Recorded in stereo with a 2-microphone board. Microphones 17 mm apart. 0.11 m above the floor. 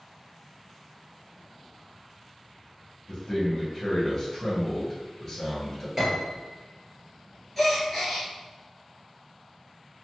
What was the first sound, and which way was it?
A man speaking, 25° left (ahead or behind).